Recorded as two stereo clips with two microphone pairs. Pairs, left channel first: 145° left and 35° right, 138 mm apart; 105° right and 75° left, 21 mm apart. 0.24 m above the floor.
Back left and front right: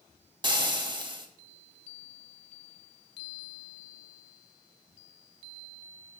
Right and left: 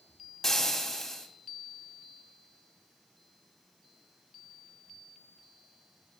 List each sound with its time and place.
0.4 s frying: 50° right, 1.2 m